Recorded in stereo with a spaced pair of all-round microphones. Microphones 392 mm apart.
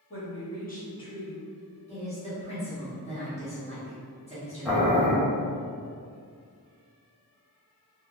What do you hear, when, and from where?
0.1 s a woman speaking: 35° left (ahead or behind), 1.1 m; by 1.8 s 20° right (ahead or behind), 0.6 m
1.9 s a woman speaking: 15° left (ahead or behind), 1.1 m
4.7 s boiling: centre (ahead or behind), 0.7 m